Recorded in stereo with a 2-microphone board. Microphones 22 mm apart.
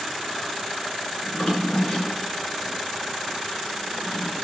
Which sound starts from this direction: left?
A drawer, at 1.2 s.